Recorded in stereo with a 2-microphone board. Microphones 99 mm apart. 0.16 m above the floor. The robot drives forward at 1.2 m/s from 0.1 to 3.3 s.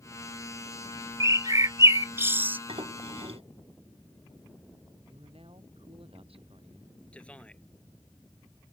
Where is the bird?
35° right (ahead or behind); by 2.6 s 20° right (ahead or behind).